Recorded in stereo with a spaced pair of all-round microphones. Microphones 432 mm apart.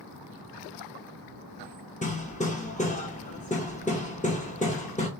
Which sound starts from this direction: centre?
Hammering, at 2.0 s.